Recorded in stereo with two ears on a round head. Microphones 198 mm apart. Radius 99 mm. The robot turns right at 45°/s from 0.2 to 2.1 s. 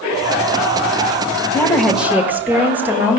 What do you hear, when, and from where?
1.5 s a woman speaking: 15° left (ahead or behind), 1.5 m; by 3.2 s 10° right (ahead or behind), 1.5 m